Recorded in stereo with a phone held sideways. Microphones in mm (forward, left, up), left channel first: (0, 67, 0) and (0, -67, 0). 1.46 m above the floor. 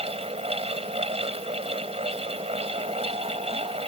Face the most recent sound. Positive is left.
turn(degrees=-50)  # may be behind; listen again after turning